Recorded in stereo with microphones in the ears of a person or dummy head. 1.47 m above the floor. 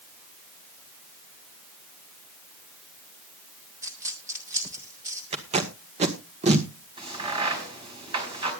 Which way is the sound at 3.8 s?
10° right (ahead or behind).